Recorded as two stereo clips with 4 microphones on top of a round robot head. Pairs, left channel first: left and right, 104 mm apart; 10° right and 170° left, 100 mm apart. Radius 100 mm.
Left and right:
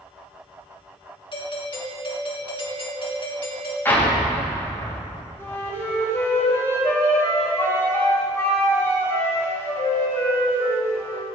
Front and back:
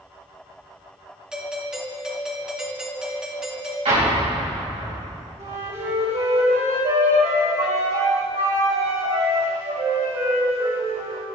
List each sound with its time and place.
1.3 s a doorbell: 90° left, 2 m
3.9 s an explosion: 160° left, 3.5 m
5.4 s a flute: 155° left, 3 m